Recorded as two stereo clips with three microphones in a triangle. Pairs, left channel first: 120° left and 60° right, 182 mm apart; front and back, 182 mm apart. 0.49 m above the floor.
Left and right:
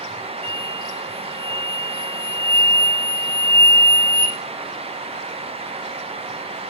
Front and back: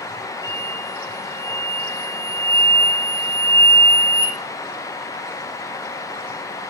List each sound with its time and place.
0.4 s an explosion: straight ahead, 8.5 m